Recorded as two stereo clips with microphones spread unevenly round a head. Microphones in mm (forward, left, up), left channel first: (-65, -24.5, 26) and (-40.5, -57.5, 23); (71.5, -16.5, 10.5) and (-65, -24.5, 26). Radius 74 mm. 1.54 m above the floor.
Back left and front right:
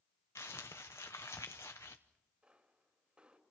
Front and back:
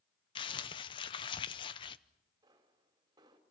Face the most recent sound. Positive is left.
turn(degrees=-115)